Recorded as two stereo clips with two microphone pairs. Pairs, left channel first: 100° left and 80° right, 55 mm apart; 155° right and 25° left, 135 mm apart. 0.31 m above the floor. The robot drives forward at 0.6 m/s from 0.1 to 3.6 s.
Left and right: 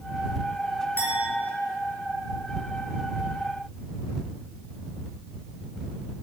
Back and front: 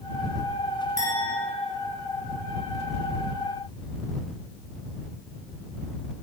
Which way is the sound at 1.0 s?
165° left.